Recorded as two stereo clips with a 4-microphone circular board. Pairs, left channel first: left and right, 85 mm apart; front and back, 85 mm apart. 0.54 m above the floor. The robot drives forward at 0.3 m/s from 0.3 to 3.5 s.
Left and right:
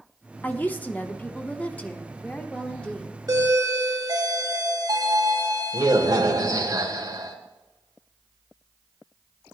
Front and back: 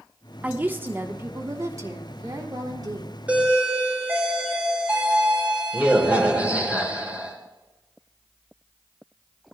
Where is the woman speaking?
130° left, 0.9 m; by 3.2 s 165° left, 1.4 m.